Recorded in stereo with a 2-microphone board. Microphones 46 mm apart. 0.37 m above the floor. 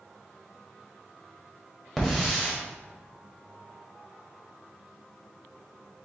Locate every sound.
2.0 s a hiss: 5° left (ahead or behind), 1.5 m